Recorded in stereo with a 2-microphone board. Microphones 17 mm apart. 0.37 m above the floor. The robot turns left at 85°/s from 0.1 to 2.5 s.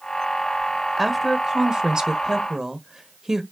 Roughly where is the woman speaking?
Centre.